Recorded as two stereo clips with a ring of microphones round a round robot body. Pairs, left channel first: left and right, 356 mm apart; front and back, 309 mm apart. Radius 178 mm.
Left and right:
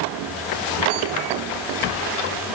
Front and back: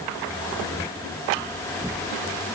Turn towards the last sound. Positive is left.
No sound to turn to.